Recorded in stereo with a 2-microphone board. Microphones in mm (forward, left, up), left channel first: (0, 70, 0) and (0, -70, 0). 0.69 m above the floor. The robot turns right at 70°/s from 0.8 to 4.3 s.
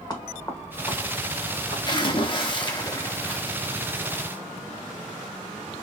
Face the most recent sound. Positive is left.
turn(degrees=-130)